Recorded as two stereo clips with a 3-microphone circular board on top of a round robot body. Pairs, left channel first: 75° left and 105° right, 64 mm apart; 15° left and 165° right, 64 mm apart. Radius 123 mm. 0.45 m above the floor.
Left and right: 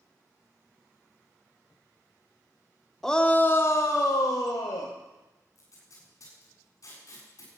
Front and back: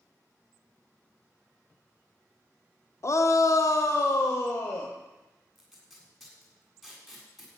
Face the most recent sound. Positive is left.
turn(degrees=105)